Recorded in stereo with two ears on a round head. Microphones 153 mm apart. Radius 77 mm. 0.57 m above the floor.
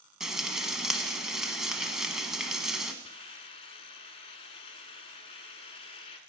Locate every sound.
0.2 s frying: 5° right (ahead or behind), 1.0 m
3.0 s a hiss: 35° left (ahead or behind), 1.0 m